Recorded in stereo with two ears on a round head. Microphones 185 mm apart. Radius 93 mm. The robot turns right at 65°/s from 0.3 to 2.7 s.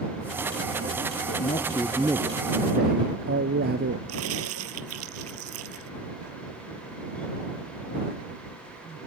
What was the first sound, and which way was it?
A man speaking, 140° left.